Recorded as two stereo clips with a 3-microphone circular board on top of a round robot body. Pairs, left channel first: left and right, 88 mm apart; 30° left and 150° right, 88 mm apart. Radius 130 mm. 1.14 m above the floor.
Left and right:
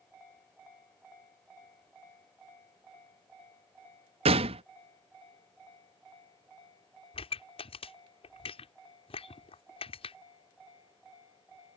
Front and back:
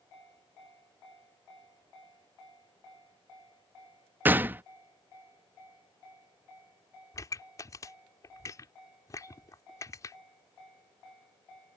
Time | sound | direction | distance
4.2 | a gunshot | 80° right | ?
7.1 | a pop | 85° left | ?